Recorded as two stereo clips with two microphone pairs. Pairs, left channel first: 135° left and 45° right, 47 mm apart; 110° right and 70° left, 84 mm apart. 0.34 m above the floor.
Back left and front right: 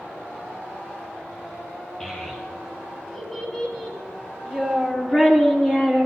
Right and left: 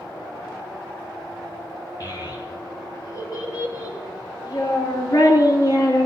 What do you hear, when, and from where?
2.0 s a child speaking: 150° right, 5 m; by 6.1 s 155° right, 2.5 m